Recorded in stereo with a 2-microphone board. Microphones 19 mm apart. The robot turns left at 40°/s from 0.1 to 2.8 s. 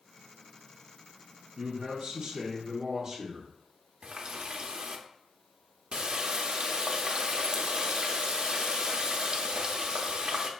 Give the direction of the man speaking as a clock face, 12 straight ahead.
4 o'clock.